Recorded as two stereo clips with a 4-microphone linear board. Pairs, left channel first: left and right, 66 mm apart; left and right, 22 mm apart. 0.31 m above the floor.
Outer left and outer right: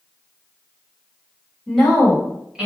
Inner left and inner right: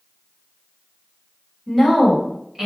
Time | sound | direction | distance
1.7 | a woman speaking | 5° left (ahead or behind) | 2.0 m